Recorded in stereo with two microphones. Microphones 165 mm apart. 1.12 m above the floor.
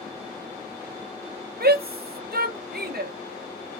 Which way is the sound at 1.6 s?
70° right (ahead or behind).